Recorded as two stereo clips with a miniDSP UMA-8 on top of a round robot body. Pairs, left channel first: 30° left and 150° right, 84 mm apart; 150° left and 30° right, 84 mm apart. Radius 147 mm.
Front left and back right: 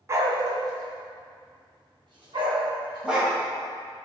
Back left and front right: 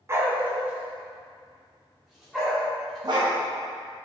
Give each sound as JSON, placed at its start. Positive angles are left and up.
{"t": 0.1, "sound": "a dog barking", "azimuth_deg": -90, "distance_m": 0.8}
{"t": 3.0, "sound": "a dog barking", "azimuth_deg": -70, "distance_m": 2.0}